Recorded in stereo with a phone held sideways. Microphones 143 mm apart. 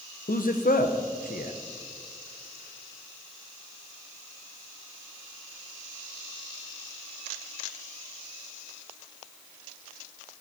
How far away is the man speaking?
About 0.9 m.